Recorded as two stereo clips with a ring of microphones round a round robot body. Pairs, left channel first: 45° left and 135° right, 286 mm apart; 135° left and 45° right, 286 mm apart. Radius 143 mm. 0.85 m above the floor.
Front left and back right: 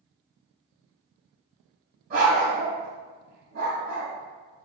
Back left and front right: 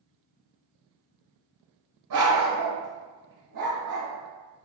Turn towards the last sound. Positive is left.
turn(degrees=-80)